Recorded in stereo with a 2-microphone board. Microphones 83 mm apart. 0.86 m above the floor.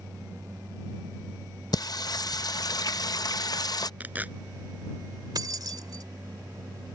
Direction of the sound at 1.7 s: 50° left (ahead or behind).